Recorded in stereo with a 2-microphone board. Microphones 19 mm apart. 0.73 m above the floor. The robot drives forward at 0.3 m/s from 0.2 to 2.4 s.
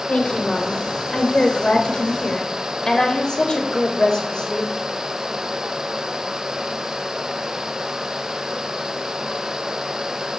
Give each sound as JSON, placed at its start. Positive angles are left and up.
{"t": 0.1, "sound": "a woman speaking", "side_deg": 60, "distance_m": 2.5}